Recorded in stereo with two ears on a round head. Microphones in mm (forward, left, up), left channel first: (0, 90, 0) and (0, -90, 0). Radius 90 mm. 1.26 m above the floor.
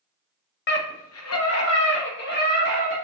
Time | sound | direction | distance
0.7 | a scream | 55° left (ahead or behind) | 0.9 m